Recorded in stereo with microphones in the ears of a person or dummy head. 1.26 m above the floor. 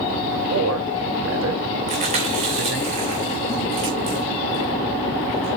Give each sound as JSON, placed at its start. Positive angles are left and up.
{"t": 0.5, "sound": "a man speaking", "side_deg": -75, "distance_m": 3.0}
{"t": 1.9, "sound": "chewing", "side_deg": -45, "distance_m": 2.5}